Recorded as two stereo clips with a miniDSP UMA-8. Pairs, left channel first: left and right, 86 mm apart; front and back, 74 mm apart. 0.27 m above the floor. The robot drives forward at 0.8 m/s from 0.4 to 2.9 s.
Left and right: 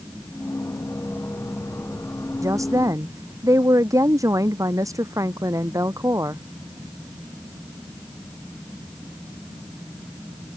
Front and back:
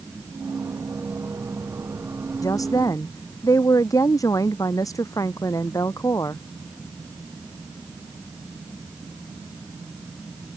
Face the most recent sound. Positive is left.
turn(degrees=-40)